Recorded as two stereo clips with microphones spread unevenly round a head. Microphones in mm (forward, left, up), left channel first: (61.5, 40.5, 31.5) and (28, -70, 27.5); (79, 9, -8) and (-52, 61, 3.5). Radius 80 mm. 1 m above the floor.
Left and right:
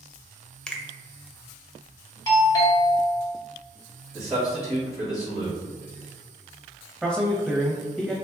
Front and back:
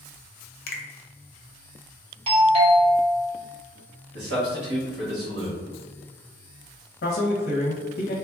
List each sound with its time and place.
0.7 s a finger snap: 10° right, 0.5 m
2.3 s a doorbell: 120° left, 0.9 m
4.1 s a man speaking: 170° left, 1.4 m
7.0 s a man speaking: 20° right, 0.6 m